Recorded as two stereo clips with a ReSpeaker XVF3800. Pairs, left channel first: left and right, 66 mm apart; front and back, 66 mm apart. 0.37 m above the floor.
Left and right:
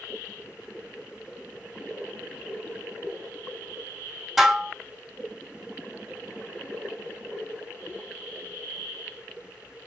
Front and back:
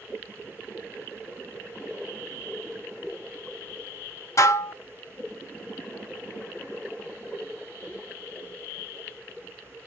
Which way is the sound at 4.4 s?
5° right.